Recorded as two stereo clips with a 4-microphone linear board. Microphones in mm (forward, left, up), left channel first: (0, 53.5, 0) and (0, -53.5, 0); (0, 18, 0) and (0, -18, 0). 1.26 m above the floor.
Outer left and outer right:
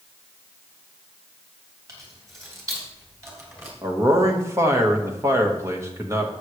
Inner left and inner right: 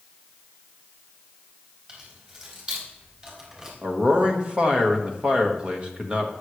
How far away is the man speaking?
About 1.7 m.